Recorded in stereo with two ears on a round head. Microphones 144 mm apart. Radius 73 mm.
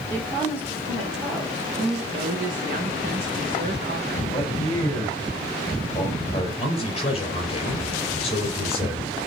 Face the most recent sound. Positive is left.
turn(degrees=40)  # may be behind; listen again after turning